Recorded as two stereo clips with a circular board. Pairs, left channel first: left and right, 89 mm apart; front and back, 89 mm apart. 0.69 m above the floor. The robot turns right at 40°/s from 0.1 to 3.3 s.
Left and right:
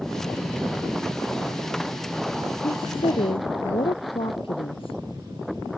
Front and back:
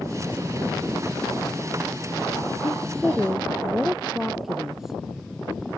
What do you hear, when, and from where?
2.6 s a woman speaking: 70° left; by 5.0 s 95° left